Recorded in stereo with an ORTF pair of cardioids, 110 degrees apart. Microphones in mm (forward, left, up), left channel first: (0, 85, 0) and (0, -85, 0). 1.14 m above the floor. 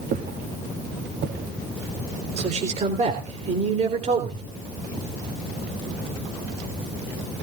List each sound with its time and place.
0.1 s footsteps: 65° right, 4.5 m; by 2.5 s 75° right, 7.5 m
2.4 s a man speaking: 40° right, 3.5 m